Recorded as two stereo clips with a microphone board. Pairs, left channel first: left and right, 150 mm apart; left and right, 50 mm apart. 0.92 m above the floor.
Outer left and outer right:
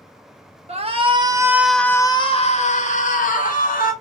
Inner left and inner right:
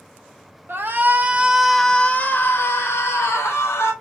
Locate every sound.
0.7 s a shout: 45° right (ahead or behind), 1.0 m; by 3.9 s 65° left (ahead or behind), 1.6 m